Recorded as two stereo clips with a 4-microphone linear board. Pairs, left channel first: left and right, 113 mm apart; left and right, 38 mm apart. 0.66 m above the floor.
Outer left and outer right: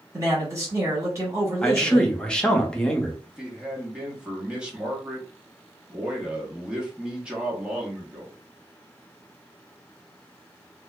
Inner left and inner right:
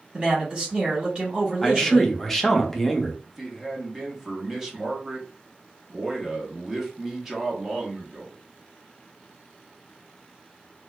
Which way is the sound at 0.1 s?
25° right (ahead or behind).